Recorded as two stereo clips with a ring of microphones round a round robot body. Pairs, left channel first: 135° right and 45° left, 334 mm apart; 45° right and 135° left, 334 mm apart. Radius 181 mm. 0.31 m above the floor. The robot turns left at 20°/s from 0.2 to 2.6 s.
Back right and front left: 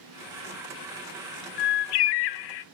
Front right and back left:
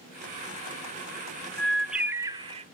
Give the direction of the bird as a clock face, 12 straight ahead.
4 o'clock.